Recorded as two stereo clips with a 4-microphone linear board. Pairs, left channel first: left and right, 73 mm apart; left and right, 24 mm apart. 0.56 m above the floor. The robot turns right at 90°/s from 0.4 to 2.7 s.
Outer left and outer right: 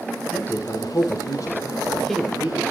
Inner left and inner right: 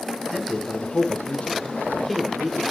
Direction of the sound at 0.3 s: 20° left.